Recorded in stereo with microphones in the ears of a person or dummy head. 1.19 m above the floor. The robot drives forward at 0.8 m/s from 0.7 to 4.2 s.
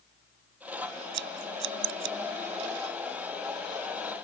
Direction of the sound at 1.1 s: 65° right (ahead or behind).